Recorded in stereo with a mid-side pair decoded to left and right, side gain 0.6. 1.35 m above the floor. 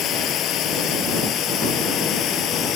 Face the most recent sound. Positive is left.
turn(degrees=55)